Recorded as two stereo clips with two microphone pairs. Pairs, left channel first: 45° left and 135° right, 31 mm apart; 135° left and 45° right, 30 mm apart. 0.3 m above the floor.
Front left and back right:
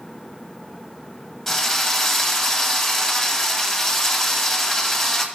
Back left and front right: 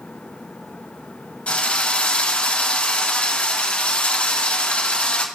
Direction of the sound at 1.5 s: 120° left.